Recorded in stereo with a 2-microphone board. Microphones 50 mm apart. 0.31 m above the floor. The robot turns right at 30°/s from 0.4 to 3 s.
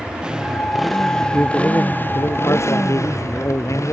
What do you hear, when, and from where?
0.0 s a motorcycle: 15° right (ahead or behind); by 3.9 s 80° left
1.3 s a man speaking: 50° left; by 3.9 s 100° left